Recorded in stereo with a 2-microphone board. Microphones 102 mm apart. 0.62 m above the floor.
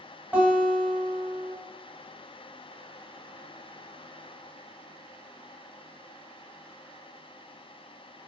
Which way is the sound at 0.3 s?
15° right (ahead or behind).